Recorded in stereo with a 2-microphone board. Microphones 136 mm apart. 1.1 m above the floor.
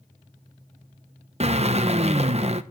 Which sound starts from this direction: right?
A drill, at 1.4 s.